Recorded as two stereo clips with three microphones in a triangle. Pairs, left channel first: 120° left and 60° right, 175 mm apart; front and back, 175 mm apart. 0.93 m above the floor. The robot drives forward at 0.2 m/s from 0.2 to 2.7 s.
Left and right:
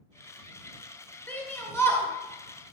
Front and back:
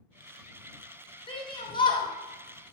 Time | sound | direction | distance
1.3 | a shout | 45° left | 1.3 m